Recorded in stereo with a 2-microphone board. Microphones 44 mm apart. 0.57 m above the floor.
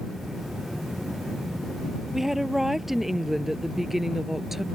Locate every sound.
2.1 s a woman speaking: 5° right (ahead or behind); by 4.6 s 10° right (ahead or behind)